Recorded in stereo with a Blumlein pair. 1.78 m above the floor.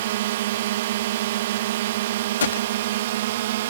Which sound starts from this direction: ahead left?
A gunshot, at 2.4 s.